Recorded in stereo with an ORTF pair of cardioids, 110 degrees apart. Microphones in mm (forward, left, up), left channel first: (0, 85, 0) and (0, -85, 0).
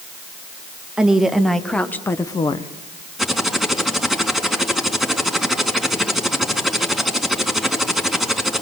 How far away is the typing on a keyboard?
About 4 m.